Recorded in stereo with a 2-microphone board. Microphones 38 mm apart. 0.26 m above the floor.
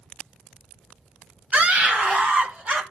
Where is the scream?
35° right (ahead or behind), 1.1 m.